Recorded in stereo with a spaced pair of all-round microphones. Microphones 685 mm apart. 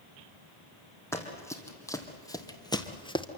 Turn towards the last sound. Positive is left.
turn(degrees=5)  # may be behind; listen again after turning